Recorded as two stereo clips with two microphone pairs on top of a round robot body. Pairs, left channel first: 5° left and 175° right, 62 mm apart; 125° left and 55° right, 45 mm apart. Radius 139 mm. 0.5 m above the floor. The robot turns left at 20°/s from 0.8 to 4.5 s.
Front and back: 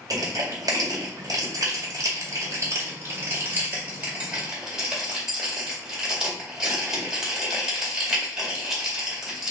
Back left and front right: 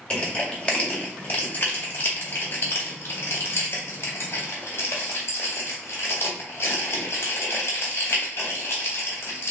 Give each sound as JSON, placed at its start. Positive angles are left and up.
{"t": 0.1, "sound": "crushing", "azimuth_deg": -175, "distance_m": 1.9}